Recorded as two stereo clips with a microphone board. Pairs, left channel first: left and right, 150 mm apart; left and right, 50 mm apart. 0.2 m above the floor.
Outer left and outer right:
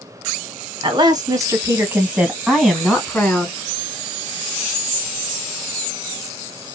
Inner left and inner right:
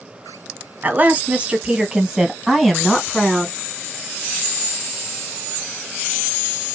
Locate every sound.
0.8 s a woman speaking: 30° right (ahead or behind), 1.5 m; by 3.5 s 10° left (ahead or behind), 1.9 m